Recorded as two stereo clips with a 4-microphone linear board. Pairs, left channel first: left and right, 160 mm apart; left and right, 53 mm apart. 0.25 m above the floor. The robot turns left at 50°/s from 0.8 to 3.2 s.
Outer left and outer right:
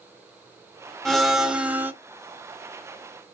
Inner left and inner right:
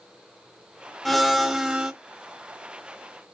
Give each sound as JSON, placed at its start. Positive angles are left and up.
{"t": 1.1, "sound": "a blender", "side_deg": 5, "distance_m": 1.1}